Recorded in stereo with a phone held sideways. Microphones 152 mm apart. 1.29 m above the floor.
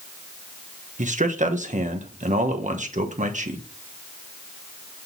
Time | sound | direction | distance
1.0 | a man speaking | 55° right (ahead or behind) | 1.3 m